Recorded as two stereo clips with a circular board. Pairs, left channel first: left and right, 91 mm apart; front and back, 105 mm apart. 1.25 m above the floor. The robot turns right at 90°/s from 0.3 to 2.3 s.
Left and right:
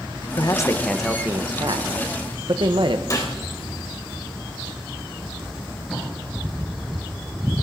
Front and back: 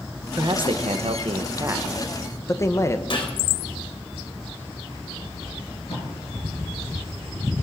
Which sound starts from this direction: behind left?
A man speaking, at 0.4 s.